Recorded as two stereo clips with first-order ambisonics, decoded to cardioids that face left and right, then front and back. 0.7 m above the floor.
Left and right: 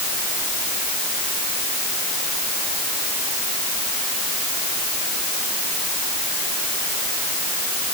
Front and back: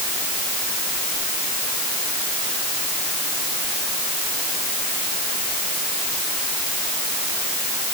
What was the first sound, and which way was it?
Only background noise.